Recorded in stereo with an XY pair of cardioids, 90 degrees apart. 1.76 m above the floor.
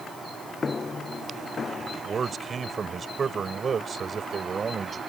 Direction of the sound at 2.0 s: 50° right.